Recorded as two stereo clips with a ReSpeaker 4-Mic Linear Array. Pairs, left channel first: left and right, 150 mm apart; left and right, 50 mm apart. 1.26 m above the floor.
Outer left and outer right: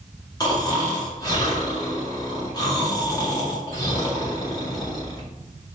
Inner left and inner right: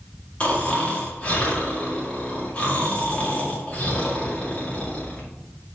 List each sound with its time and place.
0.4 s snoring: 30° left (ahead or behind), 2 m